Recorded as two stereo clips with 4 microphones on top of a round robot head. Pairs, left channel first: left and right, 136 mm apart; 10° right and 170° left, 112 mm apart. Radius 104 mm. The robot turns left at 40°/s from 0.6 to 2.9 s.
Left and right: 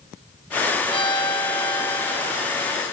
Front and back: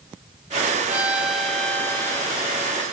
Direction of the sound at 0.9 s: 100° left.